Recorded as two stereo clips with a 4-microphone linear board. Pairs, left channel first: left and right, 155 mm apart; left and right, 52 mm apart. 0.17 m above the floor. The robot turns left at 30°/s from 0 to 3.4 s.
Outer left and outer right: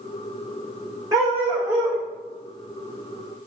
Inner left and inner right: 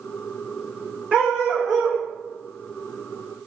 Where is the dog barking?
25° right (ahead or behind), 3.5 m; by 2.0 s 5° left (ahead or behind), 3.5 m.